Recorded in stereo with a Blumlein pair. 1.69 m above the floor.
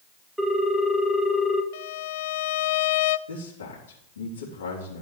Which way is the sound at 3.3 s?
65° left.